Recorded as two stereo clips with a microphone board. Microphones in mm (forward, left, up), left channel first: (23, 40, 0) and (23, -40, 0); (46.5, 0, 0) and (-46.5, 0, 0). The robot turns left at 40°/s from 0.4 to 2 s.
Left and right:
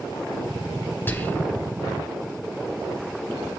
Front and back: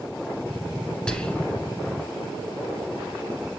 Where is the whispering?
70° left, 1.2 m; by 1.6 s 50° left, 1.2 m.